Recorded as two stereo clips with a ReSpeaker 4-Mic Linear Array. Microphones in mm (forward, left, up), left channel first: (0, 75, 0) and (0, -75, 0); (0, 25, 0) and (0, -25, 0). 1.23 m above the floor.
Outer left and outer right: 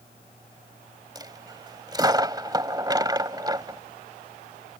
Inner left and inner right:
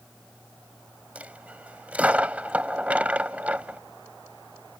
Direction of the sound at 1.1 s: 25° right (ahead or behind).